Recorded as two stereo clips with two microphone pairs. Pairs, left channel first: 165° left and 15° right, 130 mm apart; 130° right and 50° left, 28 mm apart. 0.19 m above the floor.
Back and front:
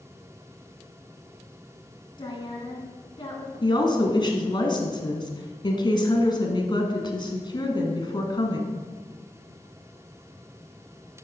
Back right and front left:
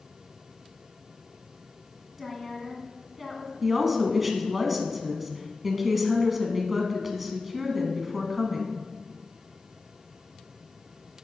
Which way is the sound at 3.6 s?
130° left.